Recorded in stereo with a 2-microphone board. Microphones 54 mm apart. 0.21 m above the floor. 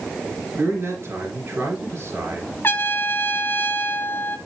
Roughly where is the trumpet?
Left.